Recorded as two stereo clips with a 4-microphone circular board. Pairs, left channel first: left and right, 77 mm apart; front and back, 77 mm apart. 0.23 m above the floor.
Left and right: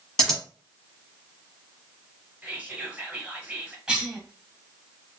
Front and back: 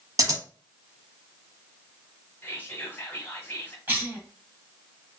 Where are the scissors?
170° left, 1.0 m.